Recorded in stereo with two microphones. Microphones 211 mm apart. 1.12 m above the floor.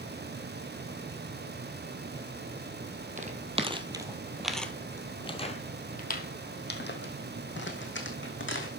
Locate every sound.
3.2 s footsteps: 35° right (ahead or behind), 1.4 m; by 8.7 s 65° left (ahead or behind), 3 m